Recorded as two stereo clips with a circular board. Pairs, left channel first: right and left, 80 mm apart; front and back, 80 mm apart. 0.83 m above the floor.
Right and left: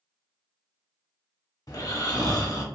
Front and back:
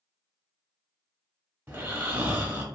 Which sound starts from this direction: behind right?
Snoring, at 1.7 s.